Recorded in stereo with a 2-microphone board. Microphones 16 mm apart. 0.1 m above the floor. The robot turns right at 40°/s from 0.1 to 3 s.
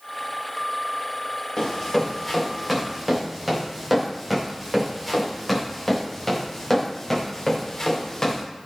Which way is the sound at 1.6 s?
40° left (ahead or behind).